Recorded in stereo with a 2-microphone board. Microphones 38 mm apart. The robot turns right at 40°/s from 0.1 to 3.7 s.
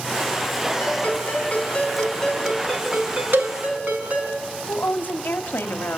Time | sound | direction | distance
0.8 | a ringtone | 115° left | 5.5 m
3.3 | a cowbell | 75° right (ahead or behind) | 1.2 m
4.7 | a woman speaking | 75° left (ahead or behind) | 1.4 m